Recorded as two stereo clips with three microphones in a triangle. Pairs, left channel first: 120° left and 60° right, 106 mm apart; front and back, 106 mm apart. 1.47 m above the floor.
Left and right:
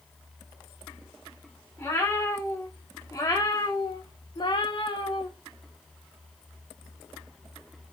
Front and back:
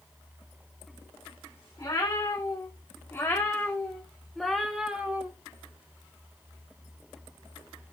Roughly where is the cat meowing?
Ahead left.